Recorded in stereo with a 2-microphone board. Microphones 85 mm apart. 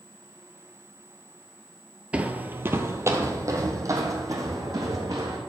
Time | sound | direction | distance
2.1 | footsteps | 15° right (ahead or behind) | 0.7 m